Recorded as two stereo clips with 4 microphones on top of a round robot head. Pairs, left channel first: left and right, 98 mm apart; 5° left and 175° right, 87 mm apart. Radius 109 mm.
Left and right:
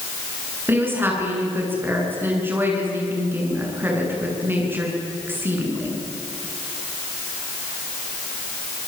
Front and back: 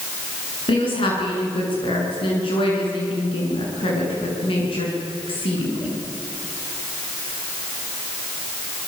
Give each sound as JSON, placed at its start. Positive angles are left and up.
{"t": 0.7, "sound": "a woman speaking", "azimuth_deg": -20, "distance_m": 9.0}